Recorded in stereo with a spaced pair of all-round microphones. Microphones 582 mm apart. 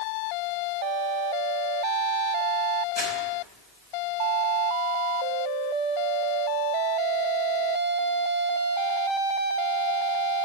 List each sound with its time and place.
3.0 s crumpling: 15° left (ahead or behind), 3.5 m